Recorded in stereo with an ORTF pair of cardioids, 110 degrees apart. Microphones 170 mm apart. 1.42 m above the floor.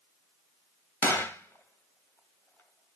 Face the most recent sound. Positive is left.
turn(degrees=10)